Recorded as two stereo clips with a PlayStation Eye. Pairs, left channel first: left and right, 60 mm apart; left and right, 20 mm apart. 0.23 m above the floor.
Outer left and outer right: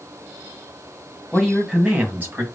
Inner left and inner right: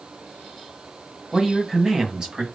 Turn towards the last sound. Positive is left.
turn(degrees=-40)  # may be behind; listen again after turning